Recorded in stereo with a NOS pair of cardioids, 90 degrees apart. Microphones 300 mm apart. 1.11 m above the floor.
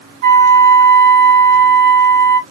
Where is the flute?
60° right, 1.4 m.